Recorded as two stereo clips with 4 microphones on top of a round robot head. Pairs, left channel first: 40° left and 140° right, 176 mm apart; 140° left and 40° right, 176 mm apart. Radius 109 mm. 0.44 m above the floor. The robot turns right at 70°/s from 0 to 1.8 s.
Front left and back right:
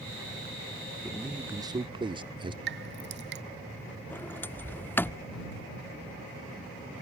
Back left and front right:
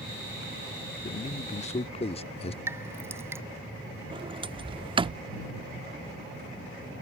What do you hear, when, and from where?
1.0 s a man speaking: 120° left; by 2.6 s 170° left
2.7 s dripping: 115° right
4.1 s a sliding door: 30° right